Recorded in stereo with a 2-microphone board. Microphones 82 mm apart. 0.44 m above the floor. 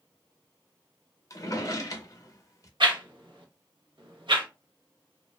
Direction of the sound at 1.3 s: 40° left (ahead or behind).